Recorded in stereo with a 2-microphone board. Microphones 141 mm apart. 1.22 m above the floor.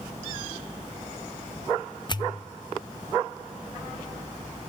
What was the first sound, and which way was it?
A pop, 30° left (ahead or behind).